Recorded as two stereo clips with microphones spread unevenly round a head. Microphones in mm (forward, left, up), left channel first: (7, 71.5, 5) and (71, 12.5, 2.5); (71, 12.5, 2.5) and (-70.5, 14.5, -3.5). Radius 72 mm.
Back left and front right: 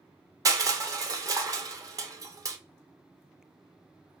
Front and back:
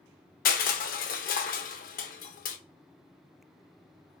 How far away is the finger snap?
I don't hear a finger snap.